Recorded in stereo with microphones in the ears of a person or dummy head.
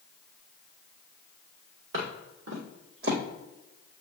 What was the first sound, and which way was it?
Footsteps, 60° right (ahead or behind).